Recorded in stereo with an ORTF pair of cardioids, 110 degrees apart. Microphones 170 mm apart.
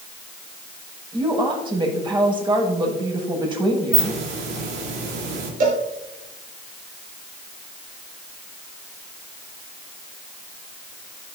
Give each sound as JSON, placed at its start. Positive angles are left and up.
{"t": 1.1, "sound": "a woman speaking", "azimuth_deg": -25, "distance_m": 6.0}
{"t": 3.9, "sound": "a hiss", "azimuth_deg": -60, "distance_m": 3.5}
{"t": 5.6, "sound": "a cowbell", "azimuth_deg": -50, "distance_m": 4.5}